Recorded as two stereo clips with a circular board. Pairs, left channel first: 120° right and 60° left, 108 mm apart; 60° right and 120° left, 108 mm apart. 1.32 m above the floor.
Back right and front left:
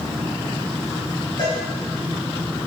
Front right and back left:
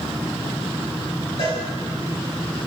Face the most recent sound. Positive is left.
turn(degrees=-80)